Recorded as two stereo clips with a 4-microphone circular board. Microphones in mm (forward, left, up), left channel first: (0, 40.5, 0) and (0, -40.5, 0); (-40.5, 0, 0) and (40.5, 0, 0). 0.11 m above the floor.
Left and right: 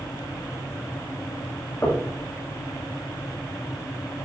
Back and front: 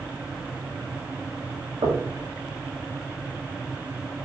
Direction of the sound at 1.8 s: 25° left.